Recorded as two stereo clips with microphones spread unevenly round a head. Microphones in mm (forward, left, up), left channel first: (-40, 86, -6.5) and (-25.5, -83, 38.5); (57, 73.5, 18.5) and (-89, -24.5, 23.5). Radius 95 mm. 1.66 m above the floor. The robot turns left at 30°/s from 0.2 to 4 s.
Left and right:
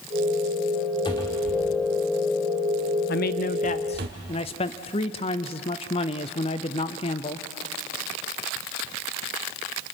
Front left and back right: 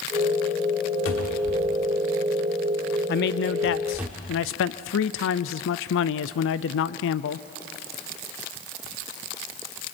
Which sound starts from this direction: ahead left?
A man speaking, at 3.1 s.